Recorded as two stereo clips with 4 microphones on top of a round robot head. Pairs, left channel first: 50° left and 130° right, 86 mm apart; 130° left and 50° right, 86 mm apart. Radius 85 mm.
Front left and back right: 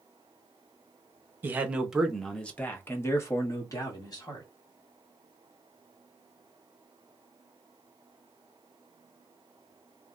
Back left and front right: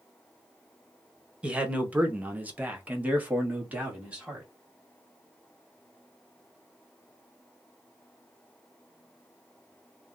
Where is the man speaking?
110° right, 0.9 m; by 4.5 s 20° left, 1.6 m.